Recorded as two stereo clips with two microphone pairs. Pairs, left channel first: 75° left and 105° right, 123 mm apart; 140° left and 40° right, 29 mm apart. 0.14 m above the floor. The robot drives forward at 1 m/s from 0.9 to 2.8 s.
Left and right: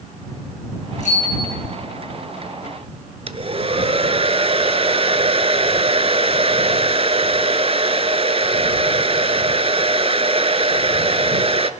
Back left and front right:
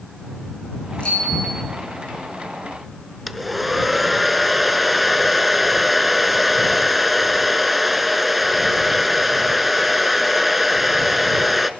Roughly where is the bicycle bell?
Left.